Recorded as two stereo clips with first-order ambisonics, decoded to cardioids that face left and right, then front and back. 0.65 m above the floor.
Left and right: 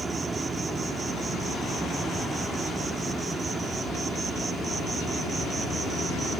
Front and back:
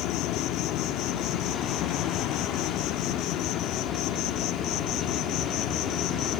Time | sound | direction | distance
0.0 | an insect | 20° right | ?